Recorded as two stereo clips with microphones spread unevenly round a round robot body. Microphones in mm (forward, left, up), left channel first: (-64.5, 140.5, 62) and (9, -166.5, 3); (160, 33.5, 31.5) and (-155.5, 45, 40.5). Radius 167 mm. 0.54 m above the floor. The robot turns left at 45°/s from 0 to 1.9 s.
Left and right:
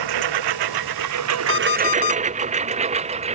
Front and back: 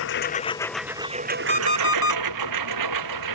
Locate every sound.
0.0 s a lawn mower: 55° right; by 3.3 s 150° right
1.5 s an alarm clock: 115° left; by 2.2 s 100° left